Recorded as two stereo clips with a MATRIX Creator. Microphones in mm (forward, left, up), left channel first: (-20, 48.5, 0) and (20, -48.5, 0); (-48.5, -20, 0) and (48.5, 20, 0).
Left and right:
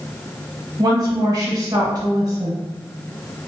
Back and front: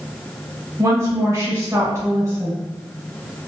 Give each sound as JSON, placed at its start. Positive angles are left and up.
{"t": 0.8, "sound": "a woman speaking", "azimuth_deg": -30, "distance_m": 1.3}